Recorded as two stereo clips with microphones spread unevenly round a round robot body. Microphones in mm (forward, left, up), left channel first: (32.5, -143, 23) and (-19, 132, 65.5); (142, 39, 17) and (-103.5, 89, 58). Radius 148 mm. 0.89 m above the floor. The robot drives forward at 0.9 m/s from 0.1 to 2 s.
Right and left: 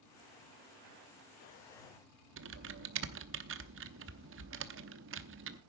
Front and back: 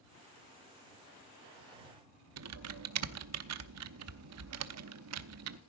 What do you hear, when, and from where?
2.4 s typing on a keyboard: 150° left, 0.9 m